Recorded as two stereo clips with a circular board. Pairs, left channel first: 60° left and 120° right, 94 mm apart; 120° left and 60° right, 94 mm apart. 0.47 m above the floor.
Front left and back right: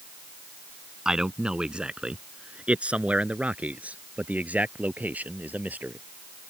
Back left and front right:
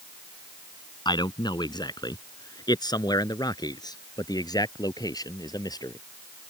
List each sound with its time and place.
1.1 s a man speaking: 160° left; by 6.0 s 170° left